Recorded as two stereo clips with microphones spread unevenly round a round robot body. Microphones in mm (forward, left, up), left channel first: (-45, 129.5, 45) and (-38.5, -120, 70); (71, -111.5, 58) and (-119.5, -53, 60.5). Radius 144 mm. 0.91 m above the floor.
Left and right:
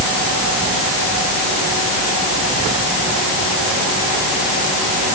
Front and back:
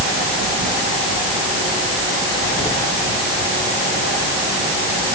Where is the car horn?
I don't hear a car horn.